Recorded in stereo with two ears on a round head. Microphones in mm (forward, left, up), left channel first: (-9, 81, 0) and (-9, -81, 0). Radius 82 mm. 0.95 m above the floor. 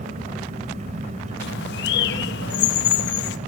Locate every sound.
0.0 s an engine running: 40° right (ahead or behind), 2.5 m
1.4 s a bird: 70° left (ahead or behind), 0.8 m